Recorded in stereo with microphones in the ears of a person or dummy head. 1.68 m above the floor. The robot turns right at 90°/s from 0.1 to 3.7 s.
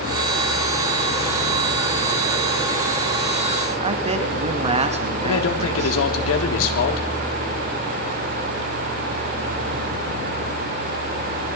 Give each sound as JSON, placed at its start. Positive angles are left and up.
{"t": 3.8, "sound": "a man speaking", "side_deg": -30, "distance_m": 2.0}
{"t": 5.2, "sound": "a man speaking", "side_deg": 80, "distance_m": 3.5}